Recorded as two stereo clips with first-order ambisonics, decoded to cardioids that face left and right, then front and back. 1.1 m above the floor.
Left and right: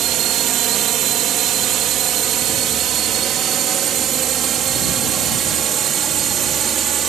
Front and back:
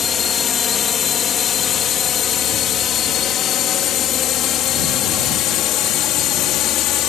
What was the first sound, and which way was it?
A drone, 60° right.